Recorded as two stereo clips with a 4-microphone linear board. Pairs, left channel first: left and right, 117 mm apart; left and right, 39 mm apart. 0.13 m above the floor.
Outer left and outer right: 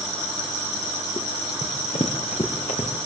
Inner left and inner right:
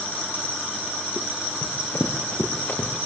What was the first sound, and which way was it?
Running footsteps, 60° left (ahead or behind).